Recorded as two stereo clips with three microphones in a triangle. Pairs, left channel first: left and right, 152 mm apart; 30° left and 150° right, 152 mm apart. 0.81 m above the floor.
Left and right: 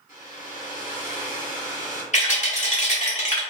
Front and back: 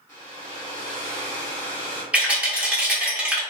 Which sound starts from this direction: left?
A hair dryer, at 0.1 s.